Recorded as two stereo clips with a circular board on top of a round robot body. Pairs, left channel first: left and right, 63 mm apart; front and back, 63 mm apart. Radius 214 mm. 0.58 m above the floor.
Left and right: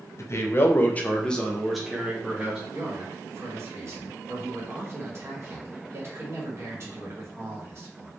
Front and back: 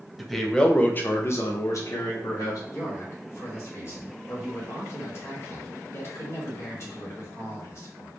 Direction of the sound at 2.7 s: 45° right.